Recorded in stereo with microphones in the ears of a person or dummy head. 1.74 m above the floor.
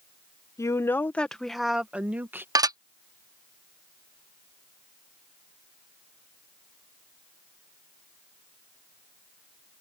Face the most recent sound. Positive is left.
turn(degrees=-15)  # may be behind; listen again after turning